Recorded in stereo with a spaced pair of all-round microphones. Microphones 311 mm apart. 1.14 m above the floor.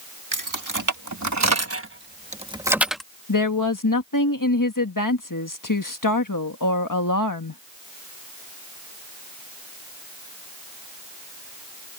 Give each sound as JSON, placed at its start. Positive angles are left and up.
{"t": 0.3, "sound": "keys jangling", "side_deg": -85}
{"t": 3.3, "sound": "a woman speaking", "side_deg": 85}